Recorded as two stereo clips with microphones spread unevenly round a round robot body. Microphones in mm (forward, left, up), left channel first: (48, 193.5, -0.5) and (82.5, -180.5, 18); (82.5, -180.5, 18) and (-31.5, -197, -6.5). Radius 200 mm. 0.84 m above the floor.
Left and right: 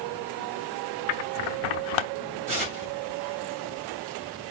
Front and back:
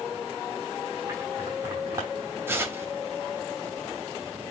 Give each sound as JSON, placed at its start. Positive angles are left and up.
{"t": 1.1, "sound": "scissors", "azimuth_deg": 105, "distance_m": 0.5}
{"t": 2.5, "sound": "tearing paper", "azimuth_deg": -100, "distance_m": 2.5}